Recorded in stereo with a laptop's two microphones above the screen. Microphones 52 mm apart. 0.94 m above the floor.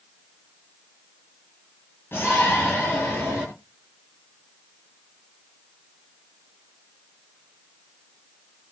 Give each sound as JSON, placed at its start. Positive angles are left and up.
{"t": 2.1, "sound": "a shout", "side_deg": 50, "distance_m": 8.5}